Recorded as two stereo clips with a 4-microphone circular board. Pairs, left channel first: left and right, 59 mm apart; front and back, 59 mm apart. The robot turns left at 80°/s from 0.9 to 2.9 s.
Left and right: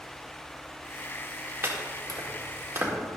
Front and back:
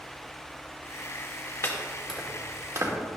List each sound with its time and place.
1.6 s chopping: 45° right, 1.8 m; by 2.9 s 145° right, 1.8 m